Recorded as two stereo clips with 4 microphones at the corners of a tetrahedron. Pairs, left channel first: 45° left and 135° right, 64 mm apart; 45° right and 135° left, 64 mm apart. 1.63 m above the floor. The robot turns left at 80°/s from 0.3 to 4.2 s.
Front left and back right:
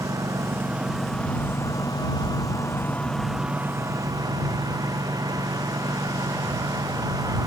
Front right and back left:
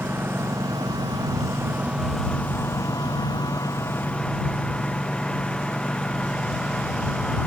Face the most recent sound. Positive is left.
turn(degrees=-120)